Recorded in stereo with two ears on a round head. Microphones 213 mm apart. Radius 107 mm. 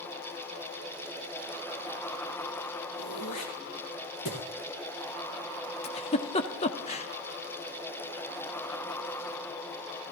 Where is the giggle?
25° left (ahead or behind), 1.0 m.